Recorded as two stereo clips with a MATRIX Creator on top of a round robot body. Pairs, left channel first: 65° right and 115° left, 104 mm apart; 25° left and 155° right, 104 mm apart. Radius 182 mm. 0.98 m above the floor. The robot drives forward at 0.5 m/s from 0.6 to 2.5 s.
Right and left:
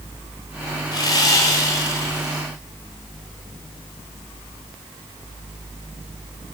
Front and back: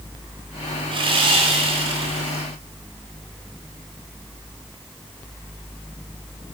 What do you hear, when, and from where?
0.9 s sawing: 120° right, 2 m; by 2.4 s 135° right, 2.5 m